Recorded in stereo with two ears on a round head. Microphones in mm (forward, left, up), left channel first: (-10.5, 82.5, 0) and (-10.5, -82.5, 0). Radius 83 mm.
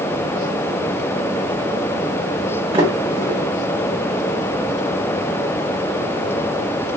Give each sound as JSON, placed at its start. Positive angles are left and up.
{"t": 2.7, "sound": "a sliding door", "side_deg": -30, "distance_m": 1.3}